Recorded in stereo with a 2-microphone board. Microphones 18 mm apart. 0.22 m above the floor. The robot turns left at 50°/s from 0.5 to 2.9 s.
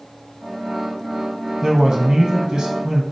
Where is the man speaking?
40° right, 1.4 m; by 3.0 s 105° right, 1.4 m.